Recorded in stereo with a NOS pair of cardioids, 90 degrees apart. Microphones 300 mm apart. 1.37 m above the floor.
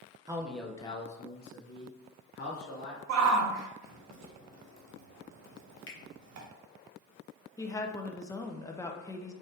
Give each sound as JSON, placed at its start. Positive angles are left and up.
{"t": 0.3, "sound": "a man speaking", "azimuth_deg": -10, "distance_m": 0.8}
{"t": 3.1, "sound": "a shout", "azimuth_deg": -60, "distance_m": 0.9}
{"t": 5.9, "sound": "a finger snap", "azimuth_deg": 40, "distance_m": 1.2}
{"t": 7.6, "sound": "a woman speaking", "azimuth_deg": 10, "distance_m": 0.6}